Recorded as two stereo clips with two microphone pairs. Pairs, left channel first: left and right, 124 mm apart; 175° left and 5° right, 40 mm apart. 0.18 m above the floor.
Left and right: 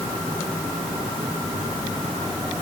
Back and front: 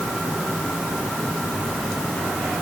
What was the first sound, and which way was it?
Only background noise.